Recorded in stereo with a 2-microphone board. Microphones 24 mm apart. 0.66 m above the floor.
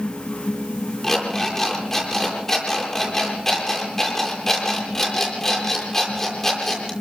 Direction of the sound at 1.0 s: 15° left (ahead or behind).